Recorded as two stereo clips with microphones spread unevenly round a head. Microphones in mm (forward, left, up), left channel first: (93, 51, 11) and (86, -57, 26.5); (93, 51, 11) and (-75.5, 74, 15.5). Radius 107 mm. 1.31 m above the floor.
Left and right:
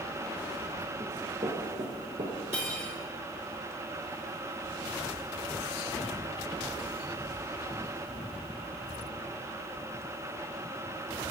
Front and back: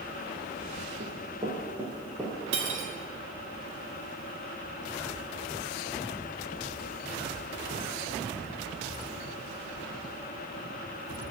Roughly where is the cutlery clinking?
Behind.